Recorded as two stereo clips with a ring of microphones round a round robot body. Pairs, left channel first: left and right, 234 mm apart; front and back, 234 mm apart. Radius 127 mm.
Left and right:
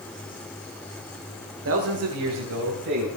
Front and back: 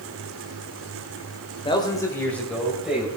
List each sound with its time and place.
1.6 s a man speaking: 65° right, 1.9 m; by 3.1 s 95° right, 3 m